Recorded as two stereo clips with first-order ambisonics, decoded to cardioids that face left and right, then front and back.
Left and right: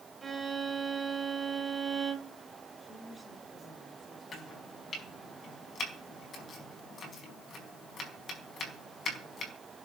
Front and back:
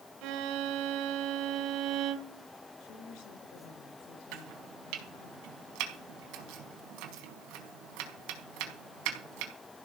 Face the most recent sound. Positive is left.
turn(degrees=155)